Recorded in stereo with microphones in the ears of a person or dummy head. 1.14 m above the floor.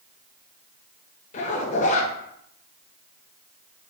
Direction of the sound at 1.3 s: 40° left (ahead or behind).